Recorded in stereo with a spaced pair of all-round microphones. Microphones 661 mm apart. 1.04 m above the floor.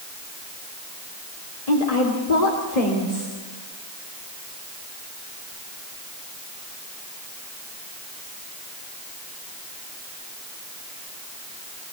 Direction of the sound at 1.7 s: 70° left (ahead or behind).